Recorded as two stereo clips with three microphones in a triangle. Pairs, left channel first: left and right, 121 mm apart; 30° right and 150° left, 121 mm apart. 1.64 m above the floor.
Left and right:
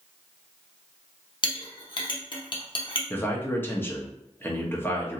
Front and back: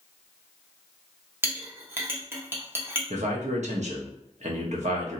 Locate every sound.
1.4 s a clink: 90° left, 0.7 m
3.1 s a man speaking: 160° left, 0.8 m